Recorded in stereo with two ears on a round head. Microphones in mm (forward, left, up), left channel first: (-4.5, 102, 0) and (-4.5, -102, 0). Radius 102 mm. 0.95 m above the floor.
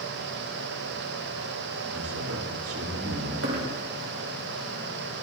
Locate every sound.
1.9 s a man speaking: 65° right (ahead or behind), 3 m
3.4 s a dropped coin: 65° right (ahead or behind), 2.5 m